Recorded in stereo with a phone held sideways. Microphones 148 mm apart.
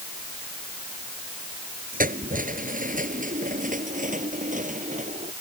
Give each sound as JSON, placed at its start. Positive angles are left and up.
{"t": 1.9, "sound": "keys jangling", "side_deg": -70}